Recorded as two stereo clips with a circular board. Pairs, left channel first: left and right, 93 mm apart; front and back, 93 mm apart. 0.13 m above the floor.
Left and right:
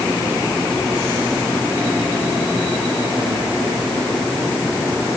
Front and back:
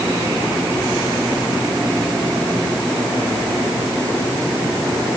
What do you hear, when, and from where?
Only background noise.